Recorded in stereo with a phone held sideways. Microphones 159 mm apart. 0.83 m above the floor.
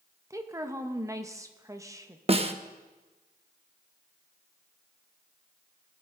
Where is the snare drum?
40° right (ahead or behind), 0.7 m.